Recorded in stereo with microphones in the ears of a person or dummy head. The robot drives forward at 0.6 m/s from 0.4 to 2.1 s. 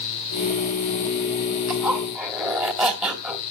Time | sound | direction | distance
1.7 | a zipper | 5° right (ahead or behind) | 2.5 m